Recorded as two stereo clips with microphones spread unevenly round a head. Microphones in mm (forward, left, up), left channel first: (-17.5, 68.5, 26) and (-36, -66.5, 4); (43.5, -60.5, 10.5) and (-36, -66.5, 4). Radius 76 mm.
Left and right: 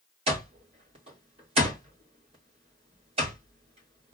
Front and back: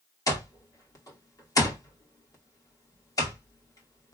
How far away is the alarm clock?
About 2 m.